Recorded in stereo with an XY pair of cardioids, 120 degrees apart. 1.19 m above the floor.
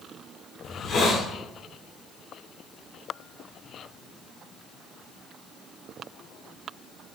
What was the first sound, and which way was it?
A hiss, 45° left.